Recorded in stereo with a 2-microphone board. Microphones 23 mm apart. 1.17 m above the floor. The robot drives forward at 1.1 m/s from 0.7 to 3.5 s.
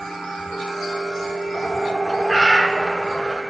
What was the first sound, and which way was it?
A bird, 25° left (ahead or behind).